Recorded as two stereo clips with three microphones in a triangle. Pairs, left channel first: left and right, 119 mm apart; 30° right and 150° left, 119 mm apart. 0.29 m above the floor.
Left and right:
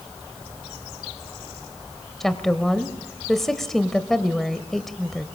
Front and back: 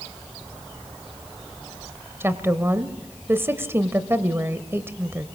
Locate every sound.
2.2 s a woman speaking: 170° left, 1.0 m